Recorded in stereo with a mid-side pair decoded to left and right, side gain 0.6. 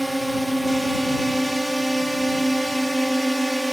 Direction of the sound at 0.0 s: 5° right.